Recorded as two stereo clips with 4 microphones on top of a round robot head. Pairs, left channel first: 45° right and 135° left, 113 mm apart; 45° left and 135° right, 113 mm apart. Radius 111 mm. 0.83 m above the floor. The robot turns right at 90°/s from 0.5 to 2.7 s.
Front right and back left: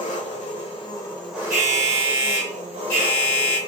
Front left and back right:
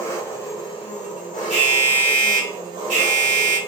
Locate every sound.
0.0 s an engine running: 25° right, 1.0 m; by 3.7 s 175° left, 1.0 m
1.5 s an alarm: 135° left, 1.7 m; by 3.6 s 115° right, 1.7 m